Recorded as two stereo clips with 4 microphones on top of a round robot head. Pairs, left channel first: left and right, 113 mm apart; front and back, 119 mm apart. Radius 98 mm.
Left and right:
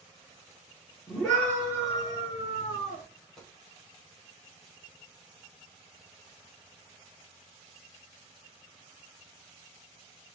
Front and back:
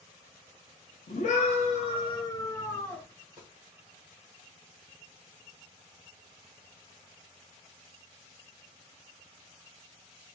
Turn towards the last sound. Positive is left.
turn(degrees=170)